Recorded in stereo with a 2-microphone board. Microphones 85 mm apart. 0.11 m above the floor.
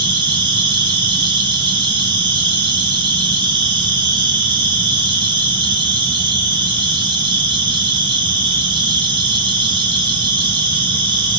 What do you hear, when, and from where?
0.0 s an insect: 65° right (ahead or behind), 3 m